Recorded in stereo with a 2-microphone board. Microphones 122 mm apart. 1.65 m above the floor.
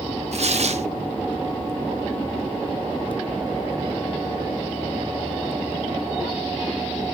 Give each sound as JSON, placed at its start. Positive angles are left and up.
{"t": 0.3, "sound": "tearing paper", "side_deg": -60, "distance_m": 0.7}